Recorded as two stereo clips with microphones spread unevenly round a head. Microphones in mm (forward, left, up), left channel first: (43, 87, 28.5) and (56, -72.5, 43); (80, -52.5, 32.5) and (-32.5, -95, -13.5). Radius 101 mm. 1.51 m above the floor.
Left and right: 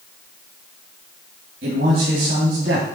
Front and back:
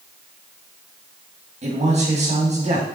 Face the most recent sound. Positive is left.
turn(degrees=-125)